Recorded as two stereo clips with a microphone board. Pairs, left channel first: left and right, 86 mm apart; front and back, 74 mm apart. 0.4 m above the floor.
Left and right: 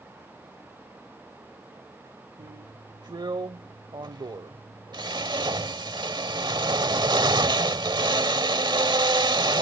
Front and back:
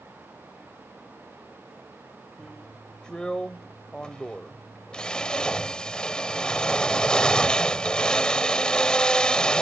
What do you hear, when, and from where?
2.4 s a drill: 75° right